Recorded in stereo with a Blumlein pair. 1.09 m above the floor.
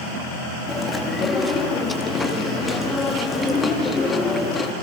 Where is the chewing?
10° left, 2 m.